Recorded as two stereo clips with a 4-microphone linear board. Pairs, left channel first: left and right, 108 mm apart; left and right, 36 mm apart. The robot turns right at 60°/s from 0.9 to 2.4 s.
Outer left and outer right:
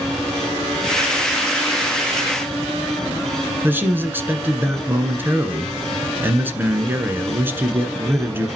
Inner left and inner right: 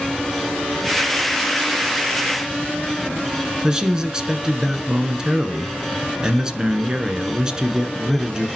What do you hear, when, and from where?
3.6 s a man speaking: 20° right (ahead or behind), 1.4 m